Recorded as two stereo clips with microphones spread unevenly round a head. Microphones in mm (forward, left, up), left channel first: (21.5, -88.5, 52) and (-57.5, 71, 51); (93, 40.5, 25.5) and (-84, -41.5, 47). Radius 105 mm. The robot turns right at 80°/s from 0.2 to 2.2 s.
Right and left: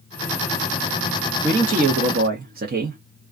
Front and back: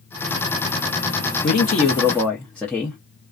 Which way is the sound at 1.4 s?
45° left.